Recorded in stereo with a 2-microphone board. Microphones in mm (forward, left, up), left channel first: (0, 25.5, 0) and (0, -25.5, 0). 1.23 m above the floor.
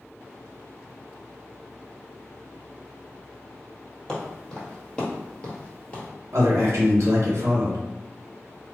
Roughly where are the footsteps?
Centre.